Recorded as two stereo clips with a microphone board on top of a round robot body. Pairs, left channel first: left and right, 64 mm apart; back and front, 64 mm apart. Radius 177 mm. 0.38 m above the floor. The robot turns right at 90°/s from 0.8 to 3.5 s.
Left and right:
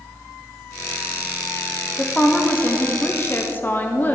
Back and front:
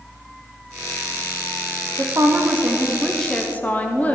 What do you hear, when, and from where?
2.0 s a woman speaking: 5° right, 1.1 m; by 4.2 s 130° left, 1.1 m